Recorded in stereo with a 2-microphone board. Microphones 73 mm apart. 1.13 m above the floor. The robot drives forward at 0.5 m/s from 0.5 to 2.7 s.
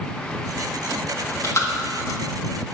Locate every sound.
1.1 s chewing: 40° left (ahead or behind), 1.8 m; by 2.7 s 60° left (ahead or behind), 1.3 m